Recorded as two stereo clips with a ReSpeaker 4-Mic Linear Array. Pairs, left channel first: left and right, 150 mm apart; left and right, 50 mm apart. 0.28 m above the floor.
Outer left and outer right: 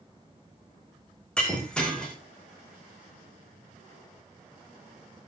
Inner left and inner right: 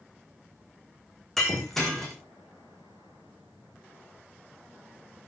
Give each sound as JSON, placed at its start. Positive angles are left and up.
{"t": 1.4, "sound": "breaking glass", "side_deg": 5, "distance_m": 5.0}